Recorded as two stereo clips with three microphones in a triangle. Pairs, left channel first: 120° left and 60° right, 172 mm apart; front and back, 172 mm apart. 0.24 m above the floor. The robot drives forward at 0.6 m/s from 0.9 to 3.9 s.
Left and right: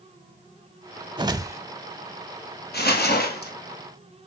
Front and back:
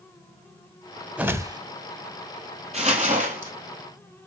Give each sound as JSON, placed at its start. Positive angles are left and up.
{"t": 1.2, "sound": "a whoosh", "azimuth_deg": -100, "distance_m": 0.7}
{"t": 2.7, "sound": "crumpling", "azimuth_deg": 135, "distance_m": 2.0}